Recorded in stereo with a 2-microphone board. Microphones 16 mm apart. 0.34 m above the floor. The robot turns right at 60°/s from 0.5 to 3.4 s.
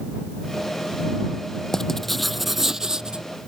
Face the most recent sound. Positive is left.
turn(degrees=-110)